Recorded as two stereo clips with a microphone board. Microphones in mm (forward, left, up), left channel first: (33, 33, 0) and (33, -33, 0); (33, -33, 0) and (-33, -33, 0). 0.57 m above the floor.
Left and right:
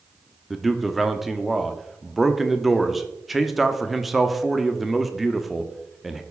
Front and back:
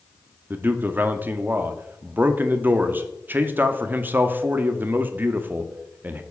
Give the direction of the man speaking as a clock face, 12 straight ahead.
6 o'clock.